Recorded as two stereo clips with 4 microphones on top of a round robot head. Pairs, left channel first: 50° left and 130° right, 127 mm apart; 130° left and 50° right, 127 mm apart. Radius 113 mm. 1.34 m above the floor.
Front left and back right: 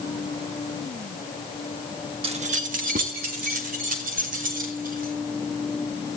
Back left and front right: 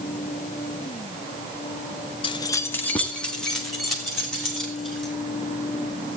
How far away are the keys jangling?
About 0.8 m.